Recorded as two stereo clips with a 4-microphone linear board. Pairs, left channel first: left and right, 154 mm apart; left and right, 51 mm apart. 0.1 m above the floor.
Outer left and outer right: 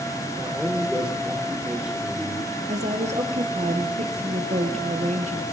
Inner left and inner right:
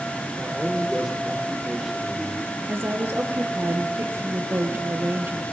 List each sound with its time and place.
0.4 s a man speaking: 5° right (ahead or behind), 2.5 m
2.7 s a woman speaking: 45° right (ahead or behind), 1.6 m